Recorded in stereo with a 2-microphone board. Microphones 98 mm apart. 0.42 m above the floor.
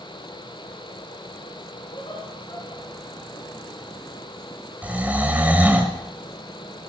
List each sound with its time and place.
1.9 s laughter: 60° left (ahead or behind), 4.5 m; by 3.4 s 65° left (ahead or behind), 5.5 m
4.8 s snoring: 15° right (ahead or behind), 1.6 m